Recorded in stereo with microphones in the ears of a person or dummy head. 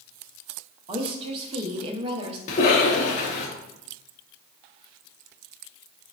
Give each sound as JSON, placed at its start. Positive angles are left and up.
{"t": 0.9, "sound": "a woman speaking", "side_deg": -30, "distance_m": 0.6}
{"t": 2.5, "sound": "a cough", "side_deg": 40, "distance_m": 0.8}